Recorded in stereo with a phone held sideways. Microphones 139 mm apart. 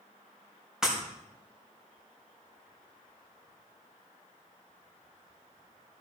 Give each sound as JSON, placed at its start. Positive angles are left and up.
{"t": 0.8, "sound": "breaking glass", "side_deg": -5, "distance_m": 4.0}